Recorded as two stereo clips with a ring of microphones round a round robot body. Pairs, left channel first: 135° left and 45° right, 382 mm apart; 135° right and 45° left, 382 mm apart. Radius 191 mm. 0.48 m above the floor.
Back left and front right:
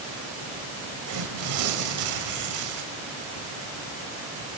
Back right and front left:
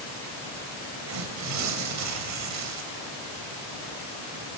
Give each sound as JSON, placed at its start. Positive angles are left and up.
{"t": 1.1, "sound": "tearing paper", "azimuth_deg": -5, "distance_m": 2.5}